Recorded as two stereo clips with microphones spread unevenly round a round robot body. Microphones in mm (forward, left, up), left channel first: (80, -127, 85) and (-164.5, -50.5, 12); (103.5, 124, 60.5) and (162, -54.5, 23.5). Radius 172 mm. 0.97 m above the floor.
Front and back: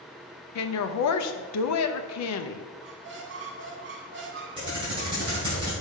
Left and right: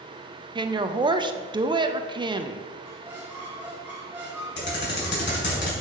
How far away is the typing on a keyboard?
About 3 m.